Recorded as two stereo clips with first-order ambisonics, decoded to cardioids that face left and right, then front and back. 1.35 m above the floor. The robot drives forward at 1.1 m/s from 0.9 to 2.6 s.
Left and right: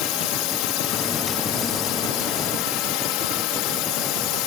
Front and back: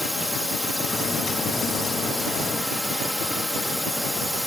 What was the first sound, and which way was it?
A drone, 85° left.